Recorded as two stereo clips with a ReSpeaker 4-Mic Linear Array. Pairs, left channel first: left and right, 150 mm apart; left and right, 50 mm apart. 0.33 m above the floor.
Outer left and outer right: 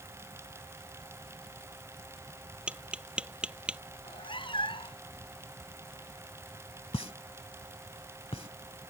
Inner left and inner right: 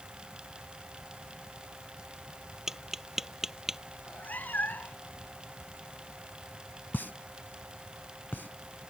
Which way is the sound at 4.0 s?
35° left (ahead or behind).